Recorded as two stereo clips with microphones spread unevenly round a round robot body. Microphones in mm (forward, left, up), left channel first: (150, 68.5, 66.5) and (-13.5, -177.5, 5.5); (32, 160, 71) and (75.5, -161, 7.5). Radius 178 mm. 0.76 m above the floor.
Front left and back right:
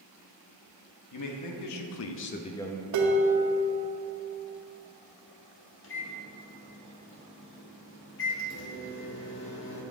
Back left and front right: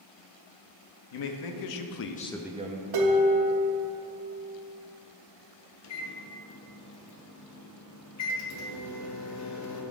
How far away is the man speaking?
About 1.0 m.